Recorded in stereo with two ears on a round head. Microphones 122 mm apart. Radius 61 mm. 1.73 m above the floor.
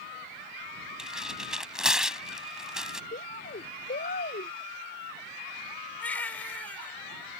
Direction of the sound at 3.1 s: 65° left (ahead or behind).